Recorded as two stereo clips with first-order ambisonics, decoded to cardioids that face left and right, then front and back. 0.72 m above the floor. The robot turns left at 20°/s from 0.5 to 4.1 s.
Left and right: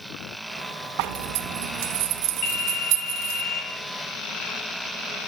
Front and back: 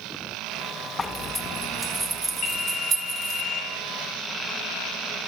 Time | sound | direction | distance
1.0 | a zipper | 75° right | 0.7 m
2.4 | a phone ringing | 55° left | 3 m